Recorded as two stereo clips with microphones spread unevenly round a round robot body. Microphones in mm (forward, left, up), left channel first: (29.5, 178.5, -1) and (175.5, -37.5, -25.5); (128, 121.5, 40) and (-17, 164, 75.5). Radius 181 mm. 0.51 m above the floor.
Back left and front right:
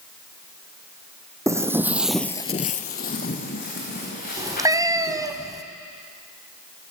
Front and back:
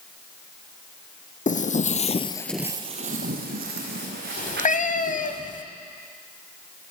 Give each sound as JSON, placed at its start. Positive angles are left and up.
{"t": 1.5, "sound": "footsteps", "azimuth_deg": 25, "distance_m": 1.5}
{"t": 4.4, "sound": "a cat meowing", "azimuth_deg": 20, "distance_m": 1.1}